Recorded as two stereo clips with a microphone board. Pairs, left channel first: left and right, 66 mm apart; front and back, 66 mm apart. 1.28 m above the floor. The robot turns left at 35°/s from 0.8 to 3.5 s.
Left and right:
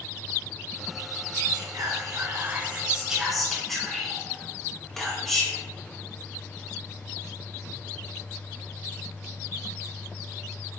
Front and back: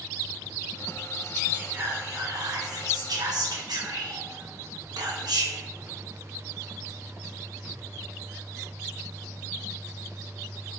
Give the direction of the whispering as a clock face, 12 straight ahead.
4 o'clock.